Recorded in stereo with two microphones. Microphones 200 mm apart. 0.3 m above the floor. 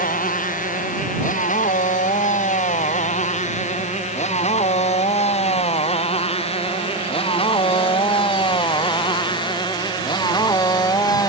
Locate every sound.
0.0 s a motorcycle: 45° left (ahead or behind); by 11.3 s 20° left (ahead or behind)